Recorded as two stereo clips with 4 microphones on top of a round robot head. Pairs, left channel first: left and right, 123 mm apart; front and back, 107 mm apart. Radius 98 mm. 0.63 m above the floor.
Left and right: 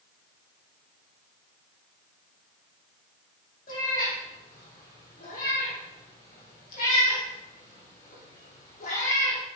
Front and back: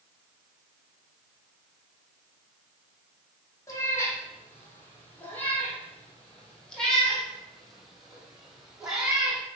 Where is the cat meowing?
60° left, 6 m; by 9.4 s 100° left, 6 m.